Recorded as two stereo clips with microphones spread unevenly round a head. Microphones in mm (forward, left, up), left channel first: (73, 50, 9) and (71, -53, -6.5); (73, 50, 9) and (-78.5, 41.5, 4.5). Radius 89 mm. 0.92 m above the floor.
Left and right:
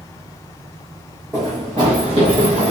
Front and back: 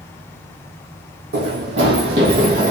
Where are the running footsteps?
165° right, 2.5 m; by 2.7 s 130° right, 2 m.